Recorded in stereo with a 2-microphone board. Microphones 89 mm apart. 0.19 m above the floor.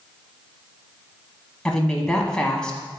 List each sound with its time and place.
1.6 s a woman speaking: 10° left (ahead or behind), 1.1 m